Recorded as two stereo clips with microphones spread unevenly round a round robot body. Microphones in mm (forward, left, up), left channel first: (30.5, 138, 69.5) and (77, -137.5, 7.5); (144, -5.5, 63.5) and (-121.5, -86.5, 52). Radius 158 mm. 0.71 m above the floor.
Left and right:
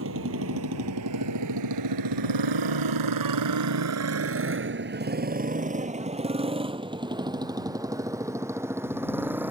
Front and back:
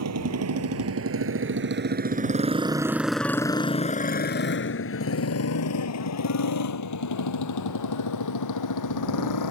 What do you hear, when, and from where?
0.0 s a motorcycle: 130° right; by 9.5 s 5° left